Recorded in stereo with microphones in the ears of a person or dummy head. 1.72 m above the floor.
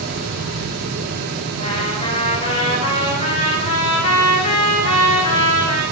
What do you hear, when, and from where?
0.0 s a fan: 45° right (ahead or behind), 1.2 m
1.6 s a trumpet: 40° left (ahead or behind), 3.5 m